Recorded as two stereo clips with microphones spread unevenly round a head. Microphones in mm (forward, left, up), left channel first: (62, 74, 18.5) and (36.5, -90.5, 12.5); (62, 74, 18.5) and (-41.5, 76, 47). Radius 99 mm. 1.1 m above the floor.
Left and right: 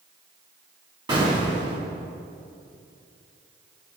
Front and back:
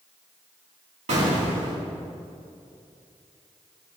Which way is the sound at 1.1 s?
165° right.